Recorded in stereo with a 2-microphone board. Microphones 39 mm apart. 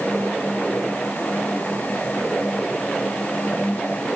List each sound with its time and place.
Only background noise.